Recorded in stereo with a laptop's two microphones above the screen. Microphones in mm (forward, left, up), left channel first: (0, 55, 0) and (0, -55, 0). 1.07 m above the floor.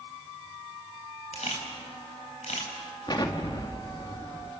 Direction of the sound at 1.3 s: 85° left.